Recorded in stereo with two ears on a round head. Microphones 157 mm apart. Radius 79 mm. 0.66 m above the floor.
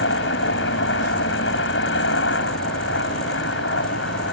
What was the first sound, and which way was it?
A helicopter, 70° left (ahead or behind).